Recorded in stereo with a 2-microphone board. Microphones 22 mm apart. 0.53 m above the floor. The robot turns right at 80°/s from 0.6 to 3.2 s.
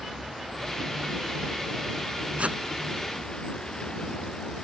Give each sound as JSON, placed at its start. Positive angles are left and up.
{"t": 0.0, "sound": "a vehicle", "azimuth_deg": -170}
{"t": 2.4, "sound": "a whoosh", "side_deg": -70}